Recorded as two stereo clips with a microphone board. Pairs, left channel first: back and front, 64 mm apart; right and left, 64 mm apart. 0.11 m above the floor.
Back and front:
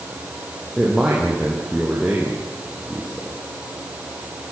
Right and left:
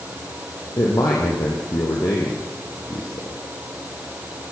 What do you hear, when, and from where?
0.8 s a man speaking: 85° right, 4 m